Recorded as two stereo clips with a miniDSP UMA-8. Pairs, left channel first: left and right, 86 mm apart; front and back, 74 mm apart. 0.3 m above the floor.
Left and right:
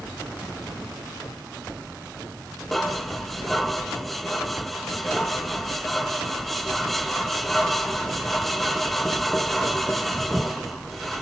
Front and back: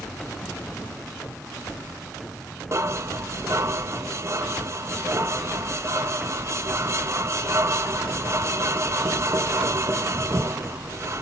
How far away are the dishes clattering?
About 0.8 m.